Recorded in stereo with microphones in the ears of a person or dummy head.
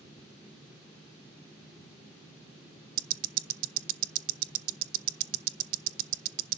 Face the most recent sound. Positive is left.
turn(degrees=-45)  # may be behind; listen again after turning